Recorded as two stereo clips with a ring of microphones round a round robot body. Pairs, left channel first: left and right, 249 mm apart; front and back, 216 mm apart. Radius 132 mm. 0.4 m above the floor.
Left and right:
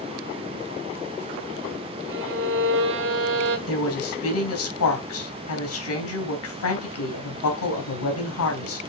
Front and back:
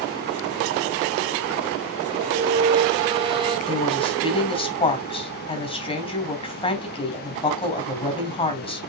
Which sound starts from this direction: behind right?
A violin, at 2.1 s.